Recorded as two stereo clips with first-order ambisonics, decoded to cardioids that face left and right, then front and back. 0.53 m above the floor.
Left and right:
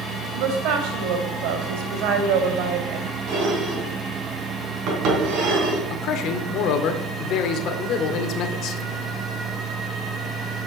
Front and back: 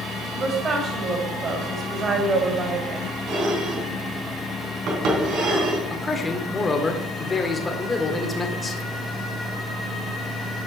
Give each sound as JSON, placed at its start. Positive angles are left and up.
{"t": 0.3, "sound": "a woman speaking", "azimuth_deg": -115, "distance_m": 2.5}
{"t": 3.3, "sound": "dishes clattering", "azimuth_deg": -135, "distance_m": 3.5}
{"t": 5.9, "sound": "a man speaking", "azimuth_deg": 75, "distance_m": 1.6}